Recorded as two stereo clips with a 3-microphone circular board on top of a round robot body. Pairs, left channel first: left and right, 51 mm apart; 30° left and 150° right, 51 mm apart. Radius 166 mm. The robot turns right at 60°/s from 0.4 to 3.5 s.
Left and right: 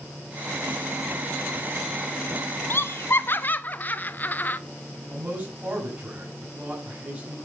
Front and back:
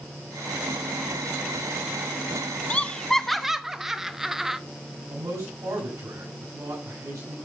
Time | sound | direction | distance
2.7 | laughter | 85° left | 1.2 m
5.1 | a man speaking | 155° right | 6.5 m